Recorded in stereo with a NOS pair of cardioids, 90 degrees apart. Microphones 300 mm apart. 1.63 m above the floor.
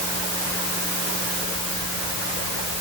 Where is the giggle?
I don't hear a giggle.